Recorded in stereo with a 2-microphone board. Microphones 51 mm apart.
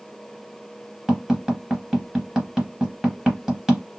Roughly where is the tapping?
Centre.